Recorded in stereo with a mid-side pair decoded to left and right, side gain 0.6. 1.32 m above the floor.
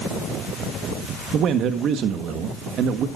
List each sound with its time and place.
1.3 s a man speaking: 55° right, 1.4 m